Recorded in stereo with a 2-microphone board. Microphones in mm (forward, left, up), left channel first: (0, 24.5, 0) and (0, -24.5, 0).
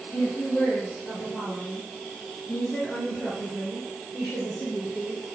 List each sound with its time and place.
0.1 s a woman speaking: 45° left (ahead or behind), 4 m; by 5.2 s 5° left (ahead or behind), 3.5 m